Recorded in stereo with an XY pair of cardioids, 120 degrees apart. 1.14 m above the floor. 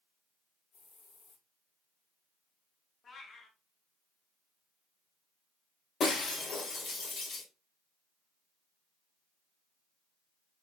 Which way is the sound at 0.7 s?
60° left.